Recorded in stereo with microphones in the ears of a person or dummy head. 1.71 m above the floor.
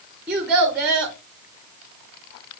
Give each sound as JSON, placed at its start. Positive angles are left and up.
{"t": 0.3, "sound": "a child speaking", "side_deg": -10, "distance_m": 0.6}